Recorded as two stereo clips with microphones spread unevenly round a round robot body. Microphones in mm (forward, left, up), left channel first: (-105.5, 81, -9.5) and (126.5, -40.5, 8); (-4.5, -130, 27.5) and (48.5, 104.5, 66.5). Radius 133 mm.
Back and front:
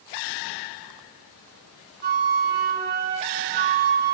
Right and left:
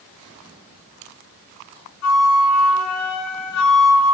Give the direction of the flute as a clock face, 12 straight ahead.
3 o'clock.